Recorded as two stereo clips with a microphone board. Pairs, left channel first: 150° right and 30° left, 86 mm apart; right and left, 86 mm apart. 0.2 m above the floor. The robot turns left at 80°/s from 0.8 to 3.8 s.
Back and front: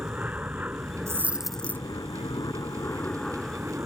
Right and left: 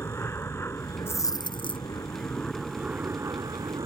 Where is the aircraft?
35° right; by 3.9 s 90° left.